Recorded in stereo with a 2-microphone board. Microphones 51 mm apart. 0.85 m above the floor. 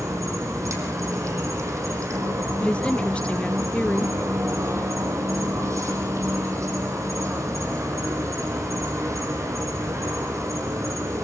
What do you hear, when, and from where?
0.0 s an insect: 80° right, 5 m
2.6 s a woman speaking: 25° left (ahead or behind), 0.6 m